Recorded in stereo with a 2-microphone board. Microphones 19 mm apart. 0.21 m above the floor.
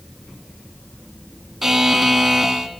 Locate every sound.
1.6 s a buzzer: 15° right (ahead or behind), 1.0 m